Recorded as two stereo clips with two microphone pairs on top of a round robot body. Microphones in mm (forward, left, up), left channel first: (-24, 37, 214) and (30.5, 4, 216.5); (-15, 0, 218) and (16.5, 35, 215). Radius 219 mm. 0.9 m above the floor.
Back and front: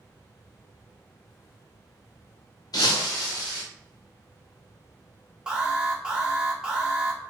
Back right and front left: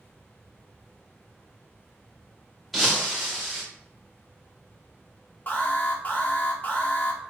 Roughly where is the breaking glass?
Behind left.